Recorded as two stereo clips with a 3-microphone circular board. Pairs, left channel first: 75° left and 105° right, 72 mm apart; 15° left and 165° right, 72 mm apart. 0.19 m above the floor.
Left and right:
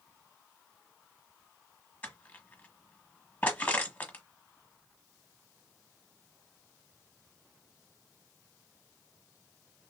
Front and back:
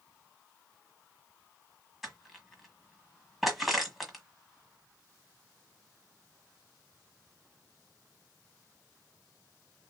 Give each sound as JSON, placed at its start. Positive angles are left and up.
{"t": 2.0, "sound": "crushing", "azimuth_deg": 110, "distance_m": 1.5}